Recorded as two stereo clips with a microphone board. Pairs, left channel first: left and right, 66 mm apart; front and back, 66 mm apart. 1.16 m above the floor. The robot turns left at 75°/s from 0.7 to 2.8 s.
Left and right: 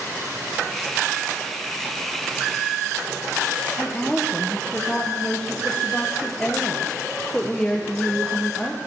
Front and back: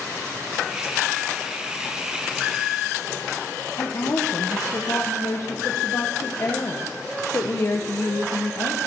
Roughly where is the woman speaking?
Ahead.